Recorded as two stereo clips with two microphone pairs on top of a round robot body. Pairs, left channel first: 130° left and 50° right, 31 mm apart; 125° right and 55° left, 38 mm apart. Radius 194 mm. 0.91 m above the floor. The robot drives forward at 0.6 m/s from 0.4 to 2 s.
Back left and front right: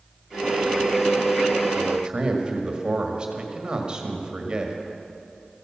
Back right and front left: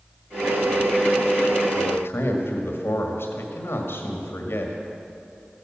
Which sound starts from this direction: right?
A man speaking, at 1.7 s.